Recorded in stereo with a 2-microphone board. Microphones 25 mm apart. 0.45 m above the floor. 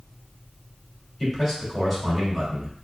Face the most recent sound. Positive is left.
turn(degrees=5)  # may be behind; listen again after turning